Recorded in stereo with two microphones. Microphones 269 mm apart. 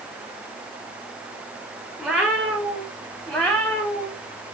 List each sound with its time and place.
2.0 s a cat meowing: centre (ahead or behind), 4.5 m; by 4.2 s 10° left (ahead or behind), 6.5 m